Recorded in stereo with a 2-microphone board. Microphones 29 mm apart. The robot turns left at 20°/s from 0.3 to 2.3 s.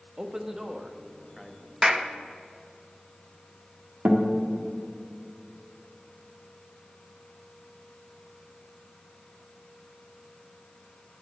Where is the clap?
10° right (ahead or behind), 0.6 m; by 2.1 s 5° right (ahead or behind), 0.6 m.